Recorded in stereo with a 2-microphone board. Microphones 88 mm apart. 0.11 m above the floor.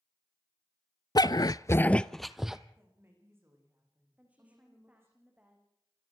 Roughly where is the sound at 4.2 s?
Centre.